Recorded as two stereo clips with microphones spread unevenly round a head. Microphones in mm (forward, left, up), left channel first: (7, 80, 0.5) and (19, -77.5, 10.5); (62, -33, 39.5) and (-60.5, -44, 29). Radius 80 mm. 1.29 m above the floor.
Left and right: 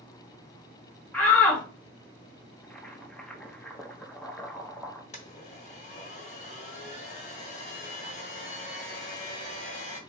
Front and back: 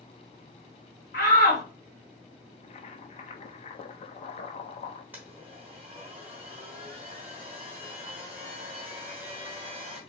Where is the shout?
15° left, 1.8 m.